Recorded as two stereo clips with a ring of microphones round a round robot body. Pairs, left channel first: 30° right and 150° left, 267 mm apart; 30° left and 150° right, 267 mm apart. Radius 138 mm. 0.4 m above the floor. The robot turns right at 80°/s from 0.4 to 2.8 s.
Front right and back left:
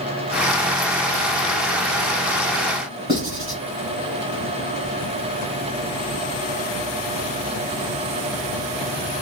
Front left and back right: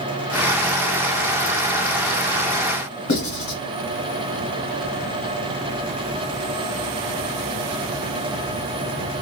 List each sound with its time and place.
3.1 s writing: 75° left, 1.8 m